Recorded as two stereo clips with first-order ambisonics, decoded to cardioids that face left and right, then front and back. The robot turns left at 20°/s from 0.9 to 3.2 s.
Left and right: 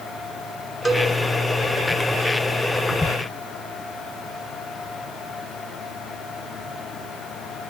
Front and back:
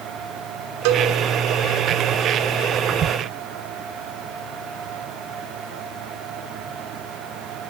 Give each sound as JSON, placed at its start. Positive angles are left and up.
{"t": 0.8, "sound": "a cowbell", "azimuth_deg": 175, "distance_m": 1.8}